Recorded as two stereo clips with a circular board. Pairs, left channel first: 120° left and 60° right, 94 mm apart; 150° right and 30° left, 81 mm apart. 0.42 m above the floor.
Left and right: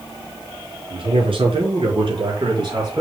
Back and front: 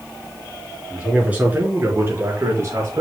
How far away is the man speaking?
About 4.5 m.